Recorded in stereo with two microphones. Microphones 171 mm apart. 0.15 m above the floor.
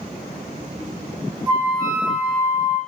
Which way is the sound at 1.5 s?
20° right (ahead or behind).